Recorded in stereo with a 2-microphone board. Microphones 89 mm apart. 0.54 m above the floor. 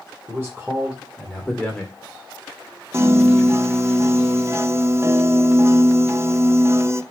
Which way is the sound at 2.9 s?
30° right (ahead or behind).